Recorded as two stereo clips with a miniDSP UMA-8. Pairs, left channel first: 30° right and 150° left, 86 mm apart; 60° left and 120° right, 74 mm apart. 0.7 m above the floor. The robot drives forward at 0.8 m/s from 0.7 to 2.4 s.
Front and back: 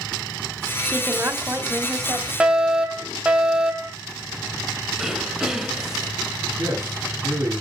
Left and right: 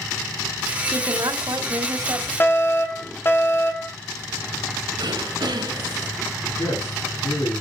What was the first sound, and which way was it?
A woman speaking, 140° right.